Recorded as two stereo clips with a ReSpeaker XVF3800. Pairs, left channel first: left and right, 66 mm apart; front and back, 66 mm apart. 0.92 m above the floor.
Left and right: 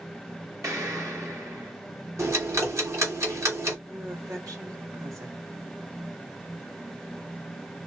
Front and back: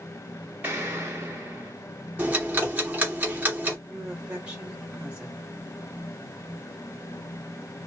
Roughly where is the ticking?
Behind right.